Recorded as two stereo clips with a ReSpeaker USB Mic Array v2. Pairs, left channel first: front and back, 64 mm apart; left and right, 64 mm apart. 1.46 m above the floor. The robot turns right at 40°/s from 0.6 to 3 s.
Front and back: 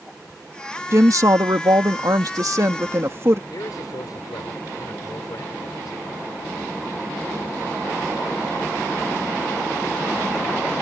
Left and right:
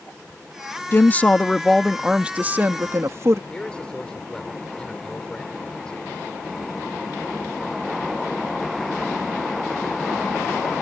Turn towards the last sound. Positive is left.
turn(degrees=15)